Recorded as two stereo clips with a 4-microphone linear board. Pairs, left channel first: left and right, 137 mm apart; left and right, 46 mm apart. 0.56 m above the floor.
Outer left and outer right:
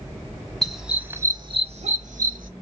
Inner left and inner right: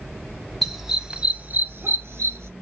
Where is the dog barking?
Centre (ahead or behind), 0.9 m; by 2.5 s 75° right (ahead or behind), 0.9 m.